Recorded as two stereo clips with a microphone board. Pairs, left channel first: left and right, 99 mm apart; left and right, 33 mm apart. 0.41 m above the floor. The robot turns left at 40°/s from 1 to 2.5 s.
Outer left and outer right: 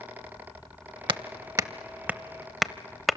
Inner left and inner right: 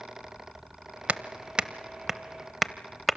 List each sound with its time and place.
1.1 s hammering: 55° right (ahead or behind), 0.6 m; by 3.2 s centre (ahead or behind), 0.6 m